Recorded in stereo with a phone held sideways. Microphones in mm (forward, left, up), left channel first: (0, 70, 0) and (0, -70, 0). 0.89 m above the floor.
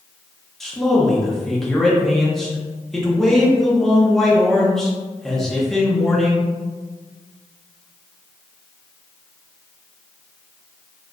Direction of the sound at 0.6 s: 5° left (ahead or behind).